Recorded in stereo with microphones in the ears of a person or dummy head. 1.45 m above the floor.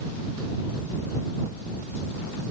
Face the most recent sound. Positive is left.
No sound to turn to.